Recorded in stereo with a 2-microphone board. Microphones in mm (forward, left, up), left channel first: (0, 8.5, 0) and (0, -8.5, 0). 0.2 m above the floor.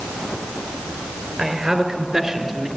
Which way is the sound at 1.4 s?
40° right (ahead or behind).